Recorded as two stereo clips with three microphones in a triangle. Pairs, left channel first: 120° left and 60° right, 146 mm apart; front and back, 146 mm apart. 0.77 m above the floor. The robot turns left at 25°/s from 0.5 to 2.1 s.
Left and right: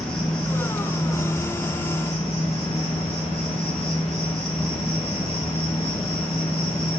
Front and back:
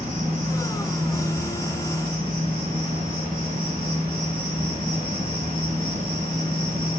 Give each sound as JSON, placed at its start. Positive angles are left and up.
{"t": 0.0, "sound": "an insect", "azimuth_deg": -155, "distance_m": 4.0}